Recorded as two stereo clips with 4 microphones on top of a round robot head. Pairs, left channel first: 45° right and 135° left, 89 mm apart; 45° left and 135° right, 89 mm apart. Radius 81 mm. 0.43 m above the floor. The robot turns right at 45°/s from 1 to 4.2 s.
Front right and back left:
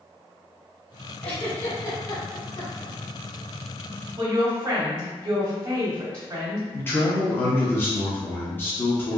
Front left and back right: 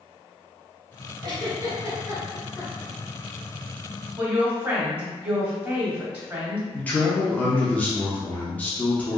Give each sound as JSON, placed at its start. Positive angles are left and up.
{"t": 1.2, "sound": "a giggle", "azimuth_deg": -120, "distance_m": 1.1}
{"t": 4.2, "sound": "a woman speaking", "azimuth_deg": 175, "distance_m": 1.0}
{"t": 6.7, "sound": "a man speaking", "azimuth_deg": -10, "distance_m": 0.8}